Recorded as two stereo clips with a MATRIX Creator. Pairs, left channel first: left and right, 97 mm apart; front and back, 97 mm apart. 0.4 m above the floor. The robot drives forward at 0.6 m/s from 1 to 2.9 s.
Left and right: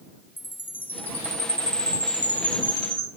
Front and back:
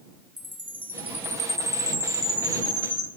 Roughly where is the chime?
Behind left.